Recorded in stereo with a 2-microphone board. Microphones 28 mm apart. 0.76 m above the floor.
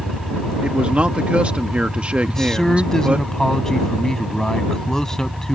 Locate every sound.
0.6 s a man speaking: 45° right (ahead or behind)
2.3 s a man speaking: 20° left (ahead or behind)